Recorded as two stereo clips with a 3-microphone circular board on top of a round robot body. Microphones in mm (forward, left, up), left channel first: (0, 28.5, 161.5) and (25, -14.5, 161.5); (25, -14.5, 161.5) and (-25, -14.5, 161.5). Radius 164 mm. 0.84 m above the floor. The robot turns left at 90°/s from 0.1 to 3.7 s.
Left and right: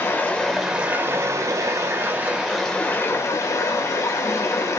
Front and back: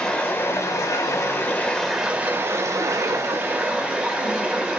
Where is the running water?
70° left, 0.8 m; by 4.8 s 105° left, 0.8 m.